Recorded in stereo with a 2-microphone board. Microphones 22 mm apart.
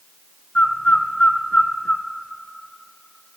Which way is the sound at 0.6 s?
70° left (ahead or behind).